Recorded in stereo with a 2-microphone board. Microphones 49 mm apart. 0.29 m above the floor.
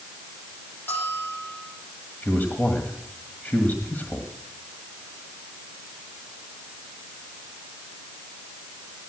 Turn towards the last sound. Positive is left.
turn(degrees=35)  # may be behind; listen again after turning